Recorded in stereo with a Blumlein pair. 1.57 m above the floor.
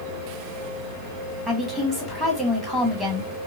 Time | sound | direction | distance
1.5 | a woman speaking | 5° left | 2 m